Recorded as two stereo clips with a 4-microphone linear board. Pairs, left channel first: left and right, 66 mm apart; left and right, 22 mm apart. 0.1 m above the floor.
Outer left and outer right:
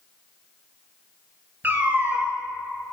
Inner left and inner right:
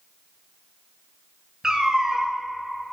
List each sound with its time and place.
1.6 s a cat meowing: 30° right (ahead or behind), 0.7 m